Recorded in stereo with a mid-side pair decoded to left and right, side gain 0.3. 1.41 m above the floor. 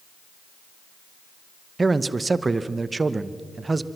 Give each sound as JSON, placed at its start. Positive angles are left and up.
{"t": 1.8, "sound": "a man speaking", "azimuth_deg": -40, "distance_m": 1.0}